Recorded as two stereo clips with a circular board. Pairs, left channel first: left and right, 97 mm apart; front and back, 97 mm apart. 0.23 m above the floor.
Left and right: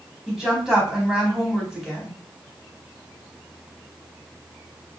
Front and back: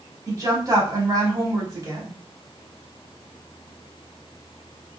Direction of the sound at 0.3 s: 170° right.